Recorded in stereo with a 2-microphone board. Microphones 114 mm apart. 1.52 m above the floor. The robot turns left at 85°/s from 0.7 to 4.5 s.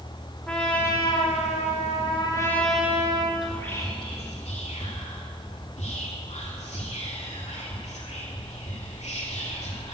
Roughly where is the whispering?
Centre.